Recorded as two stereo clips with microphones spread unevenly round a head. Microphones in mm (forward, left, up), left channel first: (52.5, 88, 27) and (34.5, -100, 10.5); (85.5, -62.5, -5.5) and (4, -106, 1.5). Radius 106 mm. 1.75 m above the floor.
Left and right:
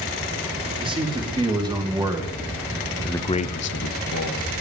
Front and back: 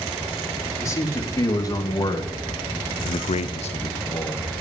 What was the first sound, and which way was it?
A man speaking, 30° right.